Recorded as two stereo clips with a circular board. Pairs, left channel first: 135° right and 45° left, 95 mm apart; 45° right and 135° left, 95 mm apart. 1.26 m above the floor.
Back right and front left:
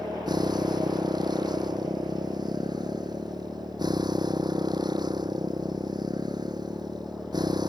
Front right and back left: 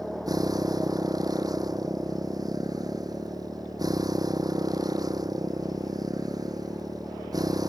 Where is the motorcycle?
85° left.